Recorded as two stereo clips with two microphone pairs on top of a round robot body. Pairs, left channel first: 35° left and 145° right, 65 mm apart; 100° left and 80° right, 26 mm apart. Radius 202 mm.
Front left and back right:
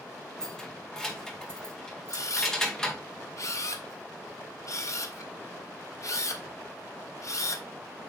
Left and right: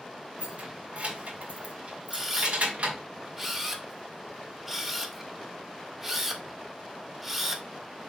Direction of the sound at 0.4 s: 50° right.